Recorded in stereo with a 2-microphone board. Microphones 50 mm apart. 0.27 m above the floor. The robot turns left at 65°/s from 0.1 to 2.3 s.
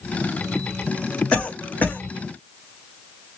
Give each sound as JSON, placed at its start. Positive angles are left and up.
{"t": 1.3, "sound": "a cough", "side_deg": 25, "distance_m": 1.1}